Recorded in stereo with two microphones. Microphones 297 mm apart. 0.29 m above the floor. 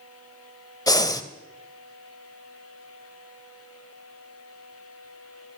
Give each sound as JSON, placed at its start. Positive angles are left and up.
{"t": 0.9, "sound": "breathing", "side_deg": 10, "distance_m": 0.5}